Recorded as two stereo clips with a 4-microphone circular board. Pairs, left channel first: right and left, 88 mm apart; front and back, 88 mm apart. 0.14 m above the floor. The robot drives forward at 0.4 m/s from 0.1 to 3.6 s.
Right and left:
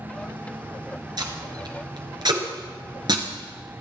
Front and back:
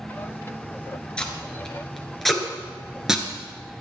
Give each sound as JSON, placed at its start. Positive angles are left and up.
{"t": 1.2, "sound": "tape being pulled", "azimuth_deg": 75, "distance_m": 2.5}